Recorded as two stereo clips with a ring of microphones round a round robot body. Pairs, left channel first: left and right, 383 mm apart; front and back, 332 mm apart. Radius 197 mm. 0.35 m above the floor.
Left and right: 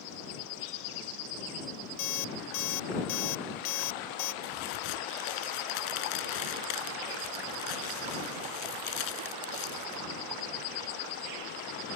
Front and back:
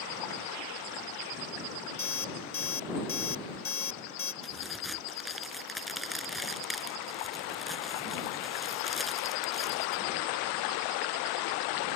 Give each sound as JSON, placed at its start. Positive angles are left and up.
{"t": 2.0, "sound": "an alarm clock", "azimuth_deg": 50}
{"t": 4.4, "sound": "a crack", "azimuth_deg": 90}